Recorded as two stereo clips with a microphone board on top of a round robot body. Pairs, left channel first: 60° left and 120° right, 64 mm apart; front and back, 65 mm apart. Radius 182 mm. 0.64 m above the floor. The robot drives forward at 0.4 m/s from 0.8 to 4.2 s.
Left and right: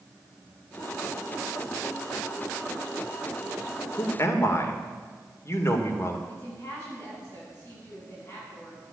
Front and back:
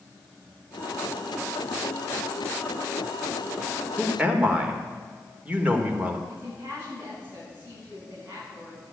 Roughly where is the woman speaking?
Behind left.